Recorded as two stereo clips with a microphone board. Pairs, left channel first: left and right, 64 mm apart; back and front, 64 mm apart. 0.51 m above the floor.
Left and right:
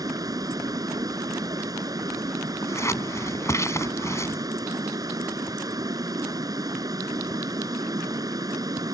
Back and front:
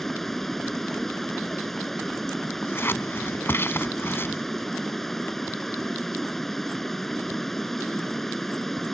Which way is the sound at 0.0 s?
95° right.